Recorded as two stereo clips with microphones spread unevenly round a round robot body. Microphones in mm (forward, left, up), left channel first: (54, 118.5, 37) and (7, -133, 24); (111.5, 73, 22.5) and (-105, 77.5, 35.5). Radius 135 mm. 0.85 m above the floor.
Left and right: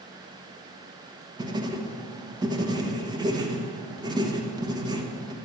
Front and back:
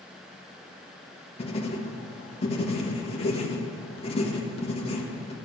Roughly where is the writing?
Ahead right.